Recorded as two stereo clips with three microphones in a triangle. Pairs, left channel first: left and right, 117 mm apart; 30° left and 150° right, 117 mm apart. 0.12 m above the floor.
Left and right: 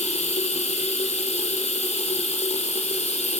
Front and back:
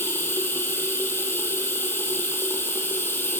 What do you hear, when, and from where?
0.0 s running water: 100° left, 2.5 m